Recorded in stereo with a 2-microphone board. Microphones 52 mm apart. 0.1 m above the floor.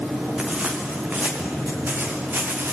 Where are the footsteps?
25° right (ahead or behind), 6 m; by 2.7 s 45° right (ahead or behind), 7 m.